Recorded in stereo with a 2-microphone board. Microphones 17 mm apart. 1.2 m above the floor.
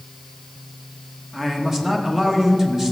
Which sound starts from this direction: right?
A man speaking, at 1.3 s.